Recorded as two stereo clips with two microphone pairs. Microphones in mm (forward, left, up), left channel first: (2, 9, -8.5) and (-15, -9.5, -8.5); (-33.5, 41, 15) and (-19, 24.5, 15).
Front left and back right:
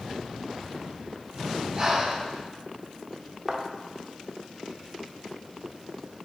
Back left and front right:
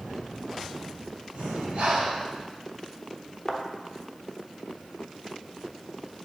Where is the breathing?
60° right, 1.9 m.